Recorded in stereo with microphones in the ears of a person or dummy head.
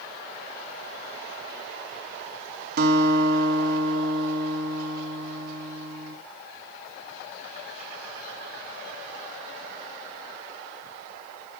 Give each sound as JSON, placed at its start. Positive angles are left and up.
{"t": 2.8, "sound": "a guitar", "side_deg": -60, "distance_m": 2.0}